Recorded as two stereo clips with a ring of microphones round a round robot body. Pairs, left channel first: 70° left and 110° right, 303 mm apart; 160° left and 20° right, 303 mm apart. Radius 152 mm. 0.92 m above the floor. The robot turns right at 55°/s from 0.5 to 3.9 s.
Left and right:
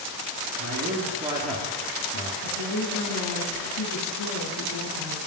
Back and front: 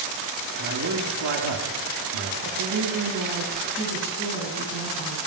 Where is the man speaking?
75° right, 2 m; by 2.3 s 20° left, 2 m.